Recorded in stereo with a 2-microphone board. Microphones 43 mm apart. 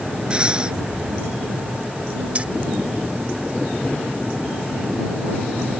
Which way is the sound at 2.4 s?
30° right (ahead or behind).